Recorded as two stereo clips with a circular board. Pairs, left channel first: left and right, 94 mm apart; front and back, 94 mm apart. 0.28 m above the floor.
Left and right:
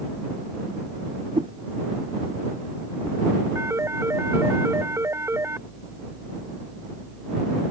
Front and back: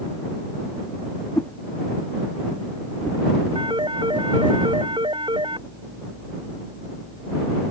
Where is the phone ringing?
150° right.